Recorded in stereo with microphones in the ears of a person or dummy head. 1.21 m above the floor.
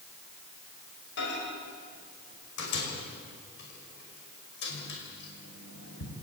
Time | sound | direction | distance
1.2 | a microwave | 65° left (ahead or behind) | 5.5 m